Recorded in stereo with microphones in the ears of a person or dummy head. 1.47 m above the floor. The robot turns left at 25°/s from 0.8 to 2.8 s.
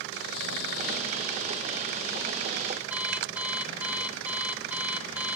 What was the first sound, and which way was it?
Snoring, 85° left.